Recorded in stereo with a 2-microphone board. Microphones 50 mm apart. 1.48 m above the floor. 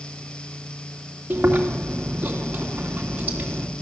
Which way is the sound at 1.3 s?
30° right (ahead or behind).